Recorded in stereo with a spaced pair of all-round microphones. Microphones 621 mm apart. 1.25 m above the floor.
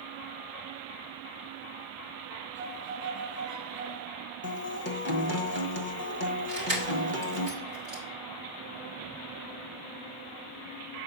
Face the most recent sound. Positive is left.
turn(degrees=-45)  # may be behind; listen again after turning